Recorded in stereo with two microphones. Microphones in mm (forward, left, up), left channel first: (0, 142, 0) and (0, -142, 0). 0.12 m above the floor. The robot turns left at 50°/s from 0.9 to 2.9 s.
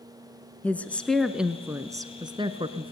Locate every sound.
0.6 s a woman speaking: 5° left (ahead or behind), 1.1 m; by 2.9 s 20° right (ahead or behind), 1.1 m